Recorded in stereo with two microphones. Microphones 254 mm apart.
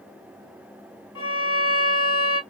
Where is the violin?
60° left (ahead or behind), 0.7 m.